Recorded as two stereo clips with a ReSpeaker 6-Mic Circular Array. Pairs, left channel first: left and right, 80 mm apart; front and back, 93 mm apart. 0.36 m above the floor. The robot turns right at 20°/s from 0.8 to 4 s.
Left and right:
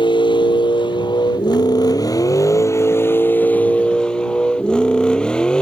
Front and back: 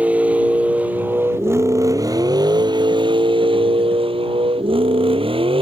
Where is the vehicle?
105° left; by 5.6 s 170° left.